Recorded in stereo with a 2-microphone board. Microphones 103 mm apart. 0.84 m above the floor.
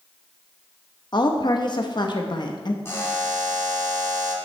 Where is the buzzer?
25° left (ahead or behind), 2 m.